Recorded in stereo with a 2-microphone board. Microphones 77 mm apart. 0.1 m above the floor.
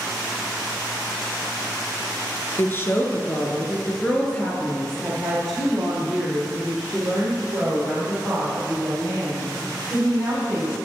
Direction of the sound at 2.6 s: 30° left (ahead or behind).